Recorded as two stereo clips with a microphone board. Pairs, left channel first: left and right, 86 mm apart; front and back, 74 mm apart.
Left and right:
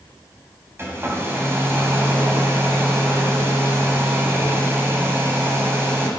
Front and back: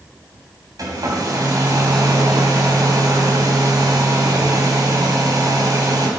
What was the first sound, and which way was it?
A hair dryer, 150° right.